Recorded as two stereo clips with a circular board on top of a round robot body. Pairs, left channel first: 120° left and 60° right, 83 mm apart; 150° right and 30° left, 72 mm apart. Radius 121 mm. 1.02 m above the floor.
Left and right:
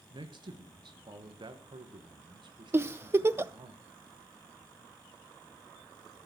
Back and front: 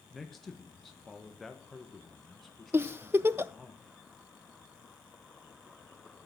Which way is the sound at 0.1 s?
60° right.